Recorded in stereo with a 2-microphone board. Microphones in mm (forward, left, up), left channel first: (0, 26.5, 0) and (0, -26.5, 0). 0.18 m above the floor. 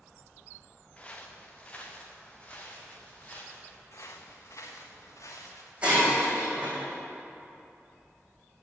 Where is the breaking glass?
20° right (ahead or behind), 3 m.